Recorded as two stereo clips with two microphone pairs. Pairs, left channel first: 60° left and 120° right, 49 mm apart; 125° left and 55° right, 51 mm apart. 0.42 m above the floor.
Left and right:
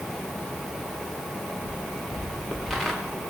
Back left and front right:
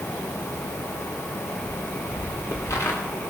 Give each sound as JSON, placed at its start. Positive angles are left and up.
{"t": 1.7, "sound": "footsteps", "azimuth_deg": 125, "distance_m": 2.5}